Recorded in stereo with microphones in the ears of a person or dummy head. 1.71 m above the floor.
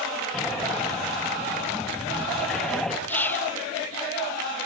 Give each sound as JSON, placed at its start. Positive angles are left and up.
{"t": 0.3, "sound": "breathing", "side_deg": 0, "distance_m": 1.6}
{"t": 3.1, "sound": "whispering", "side_deg": 10, "distance_m": 0.7}